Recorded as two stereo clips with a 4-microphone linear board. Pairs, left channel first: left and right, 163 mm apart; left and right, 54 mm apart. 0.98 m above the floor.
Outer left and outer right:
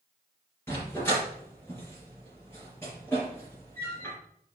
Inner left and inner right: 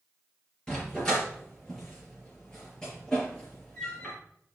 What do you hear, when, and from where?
0.7 s a dog barking: 15° left (ahead or behind), 4.5 m